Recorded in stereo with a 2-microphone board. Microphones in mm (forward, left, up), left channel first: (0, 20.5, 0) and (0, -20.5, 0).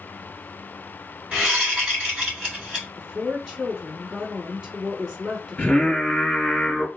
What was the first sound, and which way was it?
A whoosh, 25° right (ahead or behind).